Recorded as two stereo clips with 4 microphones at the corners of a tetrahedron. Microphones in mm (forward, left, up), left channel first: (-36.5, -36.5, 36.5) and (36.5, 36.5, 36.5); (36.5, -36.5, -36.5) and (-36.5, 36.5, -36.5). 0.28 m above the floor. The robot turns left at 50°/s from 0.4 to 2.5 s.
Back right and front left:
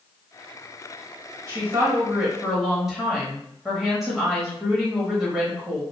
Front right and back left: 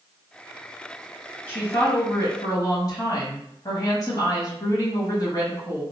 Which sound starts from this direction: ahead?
A woman speaking, at 1.5 s.